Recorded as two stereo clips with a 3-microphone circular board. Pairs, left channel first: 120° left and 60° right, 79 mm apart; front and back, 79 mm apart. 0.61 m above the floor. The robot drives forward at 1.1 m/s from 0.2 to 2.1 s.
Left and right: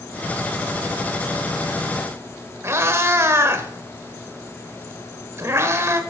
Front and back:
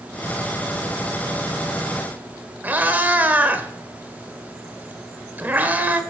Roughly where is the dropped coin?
No dropped coin in this recording.